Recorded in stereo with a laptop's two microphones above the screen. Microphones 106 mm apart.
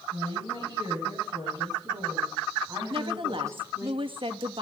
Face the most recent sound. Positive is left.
turn(degrees=-55)  # may be behind; listen again after turning